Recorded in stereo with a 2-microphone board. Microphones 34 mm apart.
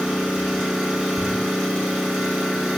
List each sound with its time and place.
0.0 s an engine running: 10° right (ahead or behind), 1.9 m
1.2 s crumpling: 45° right (ahead or behind), 0.7 m